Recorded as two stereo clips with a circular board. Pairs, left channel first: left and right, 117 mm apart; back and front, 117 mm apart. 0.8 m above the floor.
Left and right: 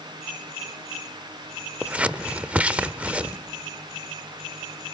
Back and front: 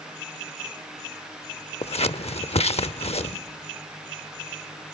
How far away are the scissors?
About 0.7 m.